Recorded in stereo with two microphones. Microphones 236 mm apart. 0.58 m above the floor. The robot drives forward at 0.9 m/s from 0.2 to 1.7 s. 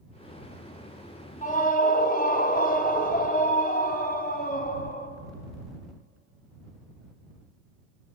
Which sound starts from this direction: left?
A scream, at 1.4 s.